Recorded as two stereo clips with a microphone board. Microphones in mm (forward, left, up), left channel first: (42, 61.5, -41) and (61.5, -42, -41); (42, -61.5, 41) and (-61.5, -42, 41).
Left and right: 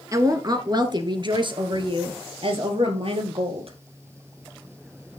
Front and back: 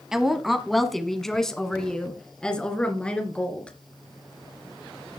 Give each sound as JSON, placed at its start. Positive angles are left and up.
{"t": 0.1, "sound": "a woman speaking", "azimuth_deg": -110, "distance_m": 1.3}